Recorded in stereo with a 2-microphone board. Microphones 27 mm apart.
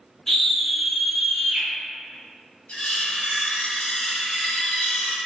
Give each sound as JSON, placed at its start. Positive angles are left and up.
{"t": 0.3, "sound": "a scream", "side_deg": 10, "distance_m": 1.1}
{"t": 2.7, "sound": "cutlery clinking", "side_deg": 50, "distance_m": 1.0}